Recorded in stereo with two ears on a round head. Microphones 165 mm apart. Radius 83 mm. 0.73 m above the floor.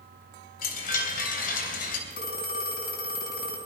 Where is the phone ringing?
50° left (ahead or behind), 4 m.